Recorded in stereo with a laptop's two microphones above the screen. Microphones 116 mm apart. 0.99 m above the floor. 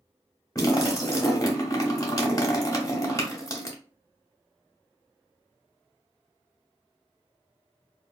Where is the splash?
30° left (ahead or behind), 0.7 m.